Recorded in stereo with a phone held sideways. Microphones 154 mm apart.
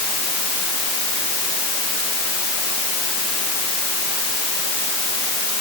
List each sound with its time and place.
Only background noise.